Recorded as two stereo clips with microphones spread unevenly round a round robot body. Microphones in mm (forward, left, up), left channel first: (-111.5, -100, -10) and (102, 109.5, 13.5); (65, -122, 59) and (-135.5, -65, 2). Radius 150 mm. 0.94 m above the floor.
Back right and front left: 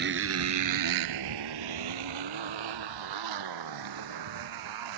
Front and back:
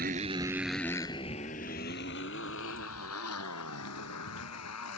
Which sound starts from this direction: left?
A motorcycle, at 0.0 s.